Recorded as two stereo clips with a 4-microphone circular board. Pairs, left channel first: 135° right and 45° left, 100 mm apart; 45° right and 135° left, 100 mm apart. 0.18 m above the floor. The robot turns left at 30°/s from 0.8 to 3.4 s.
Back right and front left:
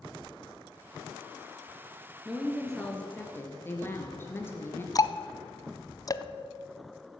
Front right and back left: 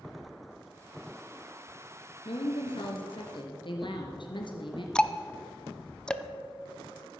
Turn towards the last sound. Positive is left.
turn(degrees=-120)